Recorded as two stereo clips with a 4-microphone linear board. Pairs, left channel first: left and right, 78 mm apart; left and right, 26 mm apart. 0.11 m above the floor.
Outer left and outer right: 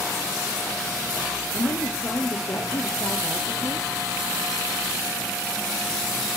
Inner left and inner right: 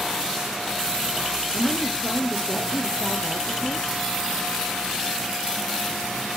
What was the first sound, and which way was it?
A woman speaking, 55° left (ahead or behind).